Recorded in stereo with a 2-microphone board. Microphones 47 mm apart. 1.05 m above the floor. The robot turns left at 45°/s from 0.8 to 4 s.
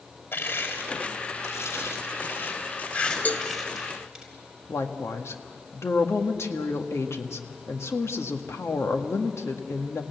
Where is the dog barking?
No dog barking in this recording.